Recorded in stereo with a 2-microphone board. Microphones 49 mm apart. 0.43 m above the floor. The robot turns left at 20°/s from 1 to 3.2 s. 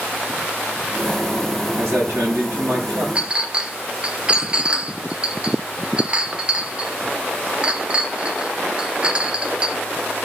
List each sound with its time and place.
1.8 s a man speaking: 60° right (ahead or behind), 6.5 m; by 3.0 s 80° right, 6.5 m
3.1 s a clink: 25° right (ahead or behind), 0.6 m